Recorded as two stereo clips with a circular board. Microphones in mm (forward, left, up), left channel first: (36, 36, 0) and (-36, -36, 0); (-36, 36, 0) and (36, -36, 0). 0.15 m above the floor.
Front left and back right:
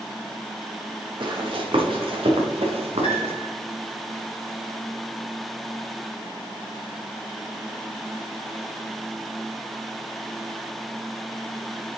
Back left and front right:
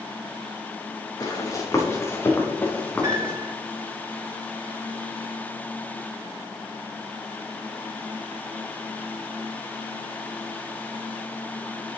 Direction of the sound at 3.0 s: 10° left.